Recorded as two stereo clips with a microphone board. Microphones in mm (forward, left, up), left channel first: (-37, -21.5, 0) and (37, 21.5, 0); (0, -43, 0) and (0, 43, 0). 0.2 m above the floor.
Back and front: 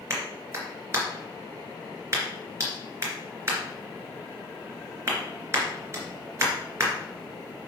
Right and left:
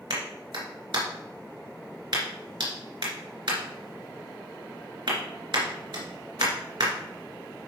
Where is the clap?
85° left, 2.5 m.